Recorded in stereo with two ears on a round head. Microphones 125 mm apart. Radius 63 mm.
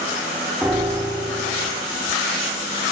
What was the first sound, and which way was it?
A piano, 10° right (ahead or behind).